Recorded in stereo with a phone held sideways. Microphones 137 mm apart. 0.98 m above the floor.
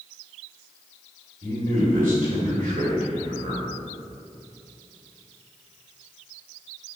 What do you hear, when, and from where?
1.4 s a man speaking: 85° right, 2.5 m